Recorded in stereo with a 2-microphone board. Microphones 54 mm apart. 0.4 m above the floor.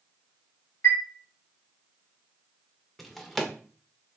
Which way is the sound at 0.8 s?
60° left (ahead or behind).